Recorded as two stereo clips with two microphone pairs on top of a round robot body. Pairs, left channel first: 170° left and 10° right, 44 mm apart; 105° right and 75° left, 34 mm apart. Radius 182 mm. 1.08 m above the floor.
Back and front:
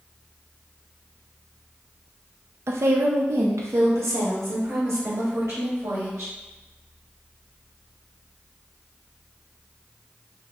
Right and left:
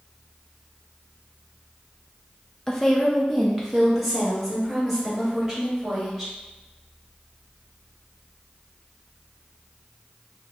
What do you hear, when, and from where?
2.7 s a woman speaking: 25° right, 0.6 m; by 6.3 s straight ahead, 2.5 m